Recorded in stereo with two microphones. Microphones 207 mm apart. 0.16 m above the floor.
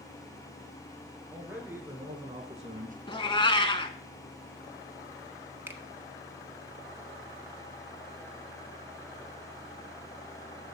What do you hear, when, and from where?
1.3 s a man speaking: 5° right (ahead or behind), 2.5 m; by 3.0 s 40° right (ahead or behind), 1.5 m
3.1 s a cat meowing: 25° left (ahead or behind), 0.7 m
5.7 s a finger snap: 10° right (ahead or behind), 1.1 m